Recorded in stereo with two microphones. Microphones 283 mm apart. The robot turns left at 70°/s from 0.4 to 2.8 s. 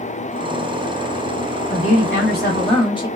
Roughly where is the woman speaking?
Left.